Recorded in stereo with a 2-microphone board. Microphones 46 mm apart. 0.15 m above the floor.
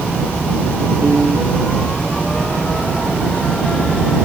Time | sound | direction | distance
1.0 | a piano | 45° right (ahead or behind) | ?